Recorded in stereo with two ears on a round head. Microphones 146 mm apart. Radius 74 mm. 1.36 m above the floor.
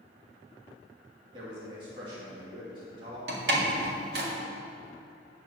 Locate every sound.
1.3 s a man speaking: 30° right (ahead or behind), 2.5 m
3.3 s a door slam: 65° right (ahead or behind), 1.9 m